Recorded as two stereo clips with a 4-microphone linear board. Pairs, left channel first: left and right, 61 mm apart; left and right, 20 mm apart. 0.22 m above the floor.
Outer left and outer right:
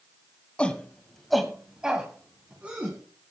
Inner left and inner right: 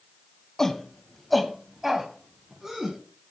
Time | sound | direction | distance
0.6 | a shout | 20° left (ahead or behind) | 1.5 m